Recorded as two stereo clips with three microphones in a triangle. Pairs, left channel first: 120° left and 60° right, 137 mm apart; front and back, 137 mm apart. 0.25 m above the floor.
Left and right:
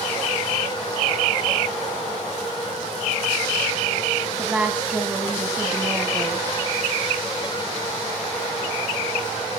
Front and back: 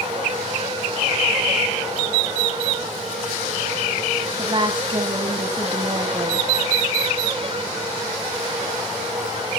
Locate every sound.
4.4 s a woman speaking: 140° right, 1.7 m